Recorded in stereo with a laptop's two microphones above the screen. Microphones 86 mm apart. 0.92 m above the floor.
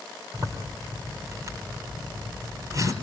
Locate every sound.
0.3 s a zipper: 45° right (ahead or behind), 3.5 m